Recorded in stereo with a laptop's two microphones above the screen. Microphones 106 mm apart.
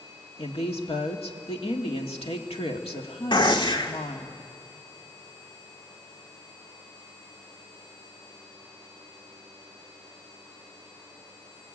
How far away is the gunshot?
About 1.6 m.